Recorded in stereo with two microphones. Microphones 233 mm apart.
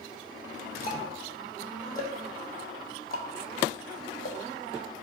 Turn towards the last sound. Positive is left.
turn(degrees=40)  # may be behind; listen again after turning